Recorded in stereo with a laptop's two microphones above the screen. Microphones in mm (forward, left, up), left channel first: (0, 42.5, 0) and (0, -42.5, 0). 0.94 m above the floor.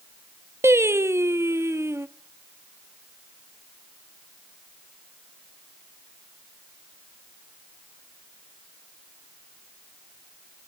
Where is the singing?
30° right (ahead or behind), 0.9 m.